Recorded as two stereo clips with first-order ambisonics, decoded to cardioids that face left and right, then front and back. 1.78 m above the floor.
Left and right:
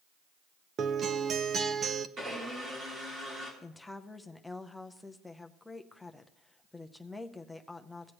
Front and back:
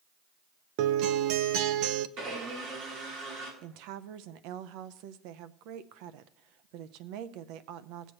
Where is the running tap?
I don't hear a running tap.